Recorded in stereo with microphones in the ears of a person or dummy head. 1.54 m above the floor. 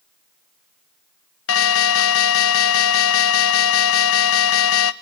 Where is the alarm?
75° left (ahead or behind), 1.2 m.